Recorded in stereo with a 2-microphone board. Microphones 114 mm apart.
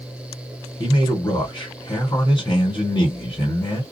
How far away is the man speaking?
About 1.6 m.